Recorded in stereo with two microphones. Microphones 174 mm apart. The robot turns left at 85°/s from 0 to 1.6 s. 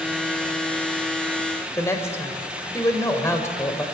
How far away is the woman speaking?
About 2.0 m.